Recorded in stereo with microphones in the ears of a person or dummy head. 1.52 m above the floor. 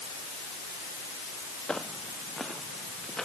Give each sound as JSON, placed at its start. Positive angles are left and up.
{"t": 1.7, "sound": "footsteps", "side_deg": 0}